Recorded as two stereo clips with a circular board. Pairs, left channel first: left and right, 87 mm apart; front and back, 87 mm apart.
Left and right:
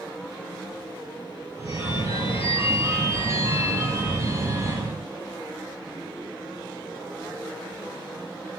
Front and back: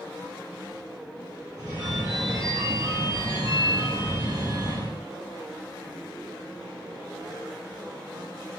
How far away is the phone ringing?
About 2 m.